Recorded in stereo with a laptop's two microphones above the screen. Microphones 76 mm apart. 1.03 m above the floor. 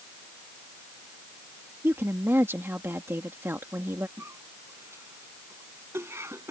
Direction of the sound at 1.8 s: 30° right (ahead or behind).